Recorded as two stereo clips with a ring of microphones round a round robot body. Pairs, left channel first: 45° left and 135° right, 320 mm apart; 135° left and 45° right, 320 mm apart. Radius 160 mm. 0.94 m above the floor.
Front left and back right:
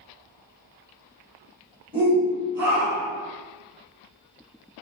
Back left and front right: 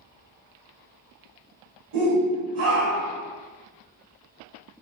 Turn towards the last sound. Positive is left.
turn(degrees=-90)